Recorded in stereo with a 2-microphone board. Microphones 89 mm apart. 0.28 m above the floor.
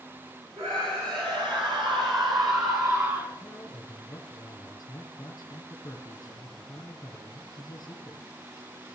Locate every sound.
0.6 s a scream: 75° right (ahead or behind), 5.5 m; by 3.3 s 30° right (ahead or behind), 3 m
3.4 s a man speaking: 45° left (ahead or behind), 2.5 m